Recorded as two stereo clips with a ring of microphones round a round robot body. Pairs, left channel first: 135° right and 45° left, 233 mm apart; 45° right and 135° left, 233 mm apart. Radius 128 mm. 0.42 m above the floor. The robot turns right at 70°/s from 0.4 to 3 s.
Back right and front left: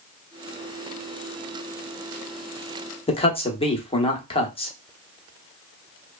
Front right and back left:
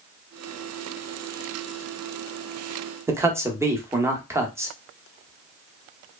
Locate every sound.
3.1 s a man speaking: 160° right, 0.8 m